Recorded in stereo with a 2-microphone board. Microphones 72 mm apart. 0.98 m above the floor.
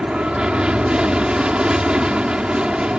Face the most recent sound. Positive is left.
turn(degrees=-10)  # may be behind; listen again after turning